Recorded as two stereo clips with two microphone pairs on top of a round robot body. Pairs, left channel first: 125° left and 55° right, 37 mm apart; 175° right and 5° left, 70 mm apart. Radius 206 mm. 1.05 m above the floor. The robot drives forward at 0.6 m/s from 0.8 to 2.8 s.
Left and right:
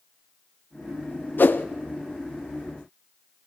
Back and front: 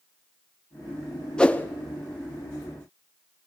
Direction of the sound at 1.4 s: 110° left.